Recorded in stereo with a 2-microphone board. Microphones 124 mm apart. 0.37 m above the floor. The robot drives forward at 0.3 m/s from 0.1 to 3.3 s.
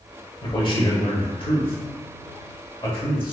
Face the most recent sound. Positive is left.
turn(degrees=40)  # may be behind; listen again after turning